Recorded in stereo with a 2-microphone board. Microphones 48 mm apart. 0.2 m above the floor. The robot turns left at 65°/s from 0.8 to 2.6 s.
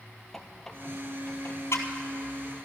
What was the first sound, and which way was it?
A squeak, 5° left (ahead or behind).